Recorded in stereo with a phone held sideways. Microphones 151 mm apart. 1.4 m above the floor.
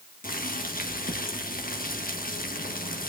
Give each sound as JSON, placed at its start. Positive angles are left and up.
{"t": 0.2, "sound": "boiling", "side_deg": 70, "distance_m": 1.6}